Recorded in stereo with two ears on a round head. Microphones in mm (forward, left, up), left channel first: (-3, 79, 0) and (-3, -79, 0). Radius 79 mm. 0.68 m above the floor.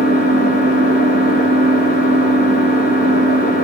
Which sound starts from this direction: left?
An engine running, at 0.0 s.